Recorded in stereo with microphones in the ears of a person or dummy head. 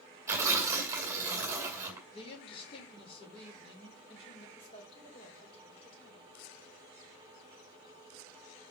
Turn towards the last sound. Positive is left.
turn(degrees=35)  # may be behind; listen again after turning